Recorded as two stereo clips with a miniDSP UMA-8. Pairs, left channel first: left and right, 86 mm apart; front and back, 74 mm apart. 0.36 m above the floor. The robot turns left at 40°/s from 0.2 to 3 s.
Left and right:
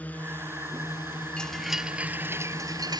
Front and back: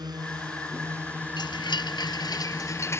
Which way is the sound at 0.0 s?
160° left.